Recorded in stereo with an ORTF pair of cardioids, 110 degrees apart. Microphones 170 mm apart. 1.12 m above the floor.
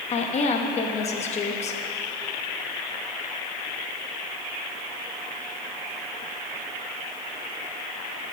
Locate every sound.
0.1 s a woman speaking: 40° left, 1.1 m